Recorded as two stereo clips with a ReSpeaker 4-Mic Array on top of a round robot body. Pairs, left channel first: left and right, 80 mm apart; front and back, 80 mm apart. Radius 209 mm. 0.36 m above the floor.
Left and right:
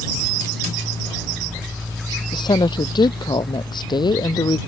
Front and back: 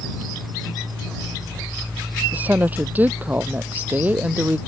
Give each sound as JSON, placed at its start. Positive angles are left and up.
{"t": 2.3, "sound": "a woman speaking", "azimuth_deg": 110}